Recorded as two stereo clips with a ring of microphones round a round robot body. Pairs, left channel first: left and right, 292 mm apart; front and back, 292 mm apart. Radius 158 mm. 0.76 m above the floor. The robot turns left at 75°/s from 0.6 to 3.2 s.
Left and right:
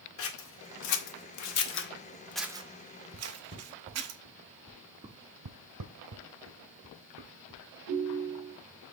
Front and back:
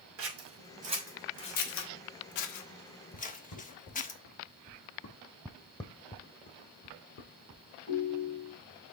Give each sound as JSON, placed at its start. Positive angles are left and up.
{"t": 0.2, "sound": "scissors", "azimuth_deg": 135, "distance_m": 1.0}
{"t": 3.1, "sound": "footsteps", "azimuth_deg": -35, "distance_m": 4.5}
{"t": 5.5, "sound": "footsteps", "azimuth_deg": -90, "distance_m": 1.5}
{"t": 7.9, "sound": "a ringtone", "azimuth_deg": -55, "distance_m": 2.5}